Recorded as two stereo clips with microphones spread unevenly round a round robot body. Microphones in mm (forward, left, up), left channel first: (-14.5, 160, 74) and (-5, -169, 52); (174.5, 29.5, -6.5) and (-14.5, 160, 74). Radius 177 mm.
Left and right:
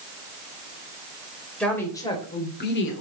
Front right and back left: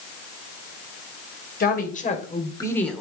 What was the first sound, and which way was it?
A woman speaking, 5° left.